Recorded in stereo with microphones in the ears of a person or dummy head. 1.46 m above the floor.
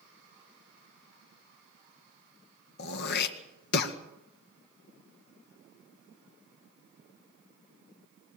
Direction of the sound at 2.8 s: 55° left (ahead or behind).